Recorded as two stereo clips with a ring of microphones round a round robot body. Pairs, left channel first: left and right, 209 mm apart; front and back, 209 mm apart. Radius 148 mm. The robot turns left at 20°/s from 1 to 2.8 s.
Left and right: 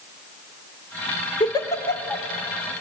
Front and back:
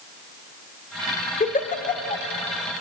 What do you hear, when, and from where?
1.4 s a giggle: 30° left, 1.5 m; by 2.2 s 15° left, 1.5 m